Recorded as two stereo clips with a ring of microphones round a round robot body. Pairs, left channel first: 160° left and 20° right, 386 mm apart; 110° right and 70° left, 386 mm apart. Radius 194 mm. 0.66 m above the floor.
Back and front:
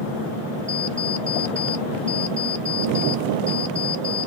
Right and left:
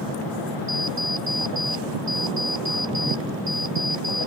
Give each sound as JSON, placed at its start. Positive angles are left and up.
{"t": 0.7, "sound": "an alarm clock", "azimuth_deg": 30}